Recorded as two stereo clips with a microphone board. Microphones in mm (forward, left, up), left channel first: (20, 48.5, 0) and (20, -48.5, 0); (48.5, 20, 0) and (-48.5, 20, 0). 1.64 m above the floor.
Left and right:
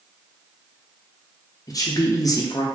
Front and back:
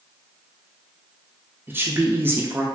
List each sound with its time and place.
1.7 s a woman speaking: 120° left, 0.5 m